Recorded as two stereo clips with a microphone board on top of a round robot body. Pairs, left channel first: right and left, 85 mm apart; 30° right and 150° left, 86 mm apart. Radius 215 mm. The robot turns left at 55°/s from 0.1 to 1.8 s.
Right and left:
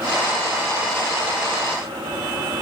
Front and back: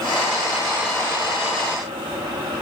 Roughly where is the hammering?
I don't hear hammering.